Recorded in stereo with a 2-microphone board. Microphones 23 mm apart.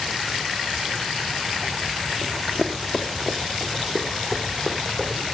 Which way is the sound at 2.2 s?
20° left (ahead or behind).